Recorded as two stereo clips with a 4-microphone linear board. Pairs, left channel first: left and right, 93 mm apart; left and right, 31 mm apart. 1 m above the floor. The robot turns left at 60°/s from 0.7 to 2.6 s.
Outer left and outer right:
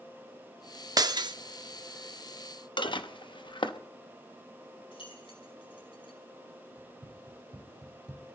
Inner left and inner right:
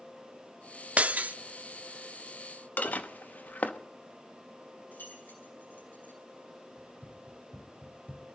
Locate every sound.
1.0 s breaking glass: 45° right (ahead or behind), 0.7 m; by 1.3 s 55° right (ahead or behind), 0.7 m
2.8 s dishes clattering: 60° left (ahead or behind), 1.0 m
4.9 s keys jangling: 75° left (ahead or behind), 5.5 m
6.8 s running footsteps: 65° right (ahead or behind), 3 m; by 8.2 s 45° right (ahead or behind), 1.6 m